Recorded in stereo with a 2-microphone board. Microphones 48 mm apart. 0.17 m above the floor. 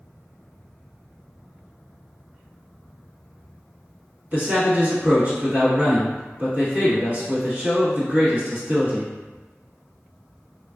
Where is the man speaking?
40° right (ahead or behind), 1.3 m.